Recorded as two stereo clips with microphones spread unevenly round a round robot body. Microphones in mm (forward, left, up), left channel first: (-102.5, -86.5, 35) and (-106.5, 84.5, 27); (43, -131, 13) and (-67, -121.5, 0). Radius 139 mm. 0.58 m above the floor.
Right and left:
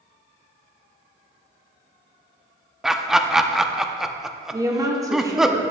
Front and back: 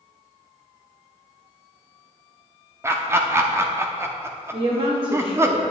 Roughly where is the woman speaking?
Behind left.